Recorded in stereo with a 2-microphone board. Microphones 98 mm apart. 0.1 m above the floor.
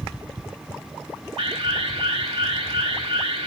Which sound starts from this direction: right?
An alarm, at 1.4 s.